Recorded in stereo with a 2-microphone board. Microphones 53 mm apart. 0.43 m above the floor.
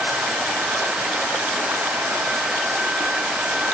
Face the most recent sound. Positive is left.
No sound to turn to.